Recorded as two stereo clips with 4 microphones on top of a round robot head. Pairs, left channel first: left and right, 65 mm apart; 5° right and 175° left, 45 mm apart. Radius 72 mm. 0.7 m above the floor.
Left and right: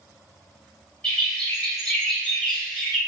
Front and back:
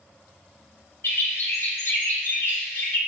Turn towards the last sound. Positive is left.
turn(degrees=15)